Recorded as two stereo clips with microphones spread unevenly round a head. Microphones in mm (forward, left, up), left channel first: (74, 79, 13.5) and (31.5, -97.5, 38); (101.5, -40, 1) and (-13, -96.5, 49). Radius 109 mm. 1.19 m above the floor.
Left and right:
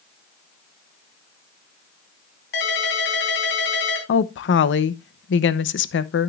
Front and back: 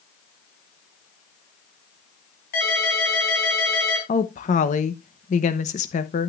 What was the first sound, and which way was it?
A ringtone, 55° left.